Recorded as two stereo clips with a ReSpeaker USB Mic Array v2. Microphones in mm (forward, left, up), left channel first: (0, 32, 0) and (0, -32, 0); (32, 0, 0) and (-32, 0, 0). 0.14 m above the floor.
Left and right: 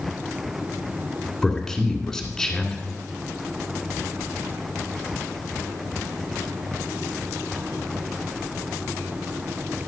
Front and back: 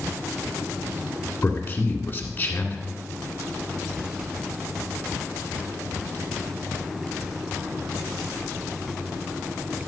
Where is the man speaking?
15° left, 1.8 m.